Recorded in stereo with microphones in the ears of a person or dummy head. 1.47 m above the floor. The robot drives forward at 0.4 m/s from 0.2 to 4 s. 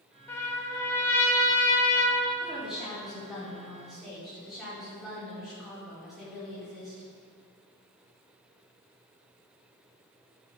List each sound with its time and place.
0.3 s a trumpet: 10° left (ahead or behind), 1.7 m; by 2.3 s 15° left (ahead or behind), 1.3 m
2.4 s a woman speaking: centre (ahead or behind), 4 m